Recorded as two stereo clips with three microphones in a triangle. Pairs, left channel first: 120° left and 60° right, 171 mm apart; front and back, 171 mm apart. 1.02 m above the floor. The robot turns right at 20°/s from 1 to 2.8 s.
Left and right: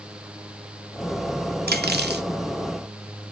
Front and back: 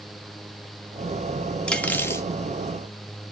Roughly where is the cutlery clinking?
Right.